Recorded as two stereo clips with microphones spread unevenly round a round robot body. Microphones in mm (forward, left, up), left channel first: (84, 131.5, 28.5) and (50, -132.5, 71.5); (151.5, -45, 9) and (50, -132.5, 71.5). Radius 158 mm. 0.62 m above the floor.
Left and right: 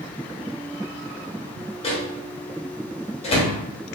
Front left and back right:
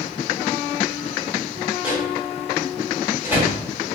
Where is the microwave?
110° left, 0.9 m.